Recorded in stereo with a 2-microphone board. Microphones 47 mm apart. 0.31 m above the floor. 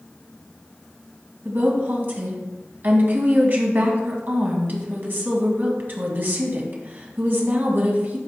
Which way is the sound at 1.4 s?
45° right (ahead or behind).